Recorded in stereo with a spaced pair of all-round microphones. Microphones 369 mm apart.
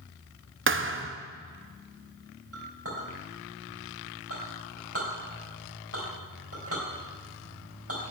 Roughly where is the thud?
Right.